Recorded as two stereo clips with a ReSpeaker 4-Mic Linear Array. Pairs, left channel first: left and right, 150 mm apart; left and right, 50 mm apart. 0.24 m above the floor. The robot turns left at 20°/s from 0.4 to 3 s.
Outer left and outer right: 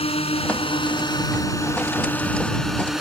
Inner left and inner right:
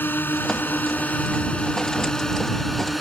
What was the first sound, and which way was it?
A drone, 50° left.